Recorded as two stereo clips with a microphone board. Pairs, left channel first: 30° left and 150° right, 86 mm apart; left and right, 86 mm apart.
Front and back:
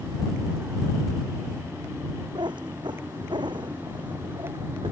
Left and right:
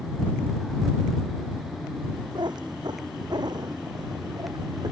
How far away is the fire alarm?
No fire alarm in this recording.